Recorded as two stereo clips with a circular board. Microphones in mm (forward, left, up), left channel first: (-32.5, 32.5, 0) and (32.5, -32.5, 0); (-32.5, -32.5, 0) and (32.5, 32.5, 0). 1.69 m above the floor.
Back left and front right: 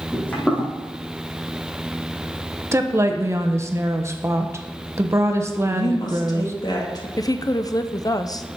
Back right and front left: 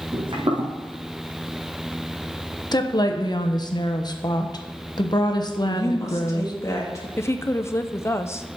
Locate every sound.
0.1 s footsteps: 60° left, 4.5 m
2.7 s a woman speaking: 100° right, 1.1 m
5.7 s a woman speaking: 170° left, 2.5 m
7.2 s a woman speaking: 170° left, 0.7 m